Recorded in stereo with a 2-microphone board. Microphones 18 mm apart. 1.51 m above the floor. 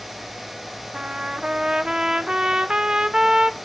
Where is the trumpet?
55° right (ahead or behind), 0.6 m.